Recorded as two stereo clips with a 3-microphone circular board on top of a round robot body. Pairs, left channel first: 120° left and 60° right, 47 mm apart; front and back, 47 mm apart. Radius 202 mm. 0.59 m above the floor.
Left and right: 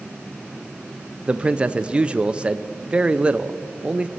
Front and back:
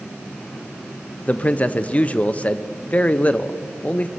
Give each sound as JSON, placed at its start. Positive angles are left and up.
{"t": 1.3, "sound": "a man speaking", "azimuth_deg": -20, "distance_m": 0.7}